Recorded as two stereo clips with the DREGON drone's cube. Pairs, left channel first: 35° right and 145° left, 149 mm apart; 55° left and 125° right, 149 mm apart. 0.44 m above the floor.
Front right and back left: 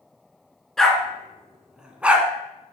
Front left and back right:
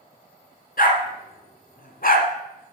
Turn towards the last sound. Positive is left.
turn(degrees=65)